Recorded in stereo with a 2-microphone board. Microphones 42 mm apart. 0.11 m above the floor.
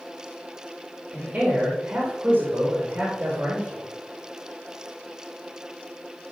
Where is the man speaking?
30° right (ahead or behind), 4.5 m.